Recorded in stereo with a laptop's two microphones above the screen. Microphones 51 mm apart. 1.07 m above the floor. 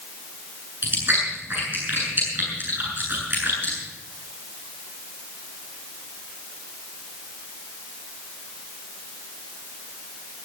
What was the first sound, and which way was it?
Chewing, 40° right (ahead or behind).